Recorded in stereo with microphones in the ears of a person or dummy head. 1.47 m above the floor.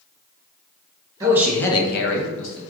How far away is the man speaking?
About 0.8 m.